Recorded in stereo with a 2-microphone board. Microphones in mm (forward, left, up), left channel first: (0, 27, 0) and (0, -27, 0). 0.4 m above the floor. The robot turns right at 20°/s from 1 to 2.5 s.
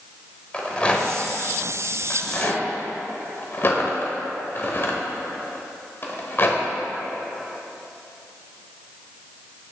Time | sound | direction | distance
0.5 | a rattle | 20° left (ahead or behind) | 0.9 m